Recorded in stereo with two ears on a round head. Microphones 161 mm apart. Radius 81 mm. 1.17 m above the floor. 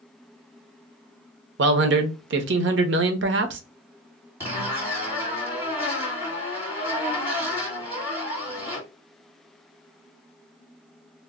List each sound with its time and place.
1.6 s a man speaking: 70° right (ahead or behind), 0.6 m
4.4 s a zipper: 10° right (ahead or behind), 1.5 m